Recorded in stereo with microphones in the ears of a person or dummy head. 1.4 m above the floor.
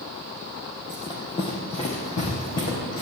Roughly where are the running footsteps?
Centre.